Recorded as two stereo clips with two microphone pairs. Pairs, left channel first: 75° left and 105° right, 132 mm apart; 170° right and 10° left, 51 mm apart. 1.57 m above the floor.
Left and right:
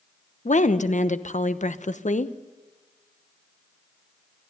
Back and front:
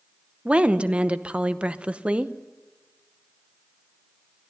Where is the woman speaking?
75° left, 0.9 m.